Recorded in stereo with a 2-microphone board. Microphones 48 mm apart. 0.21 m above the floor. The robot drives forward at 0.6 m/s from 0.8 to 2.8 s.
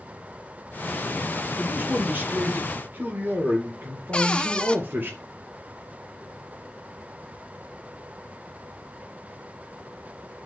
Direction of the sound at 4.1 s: 20° left (ahead or behind).